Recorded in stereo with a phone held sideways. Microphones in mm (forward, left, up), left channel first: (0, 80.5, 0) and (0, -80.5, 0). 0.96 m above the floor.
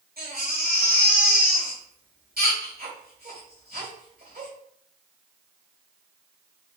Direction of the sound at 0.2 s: 70° right (ahead or behind).